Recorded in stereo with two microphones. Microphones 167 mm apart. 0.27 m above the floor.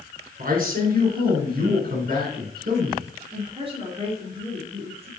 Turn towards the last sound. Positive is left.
turn(degrees=-35)  # may be behind; listen again after turning